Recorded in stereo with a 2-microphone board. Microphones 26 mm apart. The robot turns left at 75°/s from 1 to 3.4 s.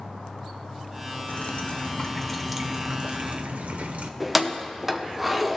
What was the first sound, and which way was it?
Dripping, 85° left.